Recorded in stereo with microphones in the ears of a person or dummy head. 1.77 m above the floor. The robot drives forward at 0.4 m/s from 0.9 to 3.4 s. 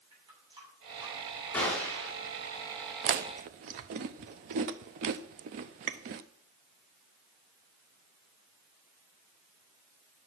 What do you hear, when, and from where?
0.1 s a running tap: 30° right (ahead or behind), 7 m
1.5 s a gunshot: 5° left (ahead or behind), 3.5 m
3.0 s chewing: 45° right (ahead or behind), 0.7 m; by 6.2 s 50° right (ahead or behind), 0.7 m